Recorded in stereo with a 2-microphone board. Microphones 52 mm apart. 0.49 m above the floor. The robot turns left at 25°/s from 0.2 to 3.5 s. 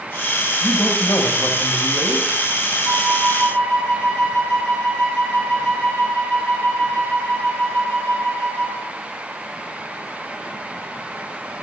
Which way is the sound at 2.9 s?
80° right.